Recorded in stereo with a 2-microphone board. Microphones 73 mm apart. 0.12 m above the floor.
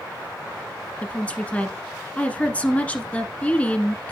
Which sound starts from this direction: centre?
A woman speaking, at 1.0 s.